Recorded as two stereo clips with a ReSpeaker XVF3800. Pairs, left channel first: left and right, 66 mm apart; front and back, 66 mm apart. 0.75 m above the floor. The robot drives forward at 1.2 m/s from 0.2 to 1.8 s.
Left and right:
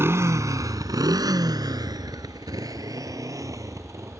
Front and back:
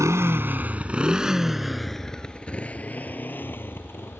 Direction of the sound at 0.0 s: 145° right.